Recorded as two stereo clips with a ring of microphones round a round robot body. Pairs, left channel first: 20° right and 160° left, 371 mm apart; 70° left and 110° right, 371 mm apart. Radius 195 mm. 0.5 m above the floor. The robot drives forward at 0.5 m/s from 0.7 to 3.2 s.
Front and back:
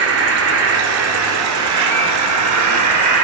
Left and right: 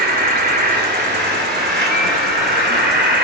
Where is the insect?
170° right, 2.5 m; by 3.2 s 175° right, 3.5 m.